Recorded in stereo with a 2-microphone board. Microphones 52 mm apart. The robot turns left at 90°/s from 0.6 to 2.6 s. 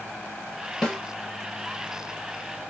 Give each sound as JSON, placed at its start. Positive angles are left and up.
{"t": 0.8, "sound": "a snare drum", "side_deg": 10, "distance_m": 1.1}